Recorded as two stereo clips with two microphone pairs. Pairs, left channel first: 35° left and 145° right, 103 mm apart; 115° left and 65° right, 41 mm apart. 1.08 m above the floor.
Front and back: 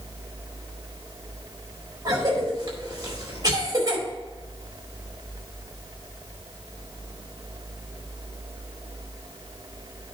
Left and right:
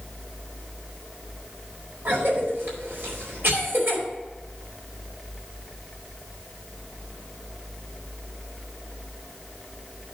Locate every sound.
2.0 s a cough: 95° right, 4.5 m